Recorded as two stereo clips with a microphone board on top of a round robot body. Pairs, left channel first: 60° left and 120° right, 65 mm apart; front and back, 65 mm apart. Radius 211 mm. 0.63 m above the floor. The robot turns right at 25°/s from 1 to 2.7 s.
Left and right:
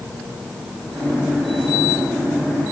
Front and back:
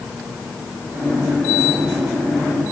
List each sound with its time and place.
Only background noise.